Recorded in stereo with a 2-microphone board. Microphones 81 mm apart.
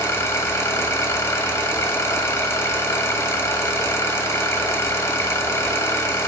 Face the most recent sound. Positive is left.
turn(degrees=35)  # may be behind; listen again after turning